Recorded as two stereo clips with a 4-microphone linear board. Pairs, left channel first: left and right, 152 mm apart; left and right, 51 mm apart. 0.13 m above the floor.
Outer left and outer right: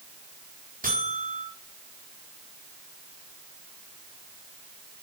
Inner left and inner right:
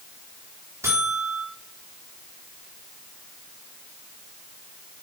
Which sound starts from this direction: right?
A buzzer, at 0.8 s.